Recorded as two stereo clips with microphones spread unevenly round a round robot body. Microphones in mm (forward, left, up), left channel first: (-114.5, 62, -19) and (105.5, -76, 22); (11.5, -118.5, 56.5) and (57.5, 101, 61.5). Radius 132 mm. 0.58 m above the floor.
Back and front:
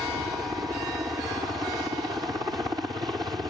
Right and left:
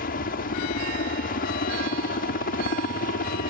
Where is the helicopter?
110° right.